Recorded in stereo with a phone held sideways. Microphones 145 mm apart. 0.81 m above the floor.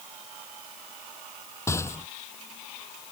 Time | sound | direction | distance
1.7 | a rattle | 20° left (ahead or behind) | ?